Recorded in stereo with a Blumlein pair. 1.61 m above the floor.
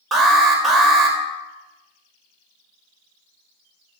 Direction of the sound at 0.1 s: 15° right.